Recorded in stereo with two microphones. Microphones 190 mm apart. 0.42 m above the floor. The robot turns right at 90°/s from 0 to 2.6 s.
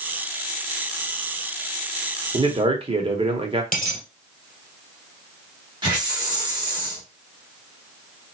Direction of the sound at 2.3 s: 25° right (ahead or behind).